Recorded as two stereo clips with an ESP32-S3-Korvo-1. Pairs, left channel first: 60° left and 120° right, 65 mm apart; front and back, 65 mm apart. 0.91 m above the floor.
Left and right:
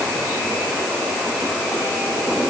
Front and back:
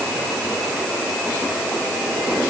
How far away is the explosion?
I don't hear an explosion.